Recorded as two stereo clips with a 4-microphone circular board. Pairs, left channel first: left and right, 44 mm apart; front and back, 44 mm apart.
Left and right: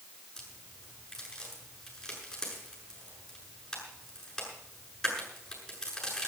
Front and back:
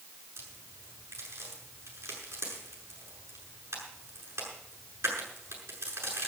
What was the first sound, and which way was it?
A crack, 170° left.